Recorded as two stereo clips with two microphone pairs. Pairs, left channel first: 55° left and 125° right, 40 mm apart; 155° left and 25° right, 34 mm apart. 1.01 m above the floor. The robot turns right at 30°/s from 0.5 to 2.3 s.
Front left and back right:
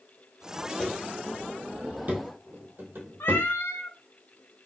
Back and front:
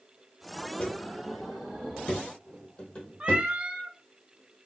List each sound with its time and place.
0.8 s footsteps: 125° left, 1.4 m; by 3.5 s 145° right, 2 m
3.2 s a cat meowing: 35° left, 0.6 m